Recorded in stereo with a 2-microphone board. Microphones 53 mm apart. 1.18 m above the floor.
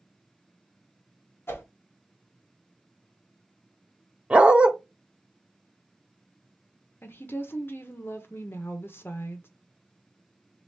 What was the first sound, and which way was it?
A whoosh, 50° left (ahead or behind).